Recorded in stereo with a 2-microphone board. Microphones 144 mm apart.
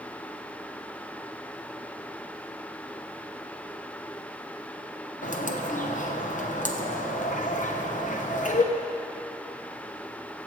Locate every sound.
5.2 s a bird: 60° left (ahead or behind), 1.0 m